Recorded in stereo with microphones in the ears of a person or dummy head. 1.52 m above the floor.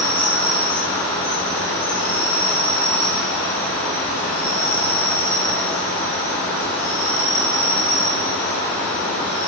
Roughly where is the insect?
Centre.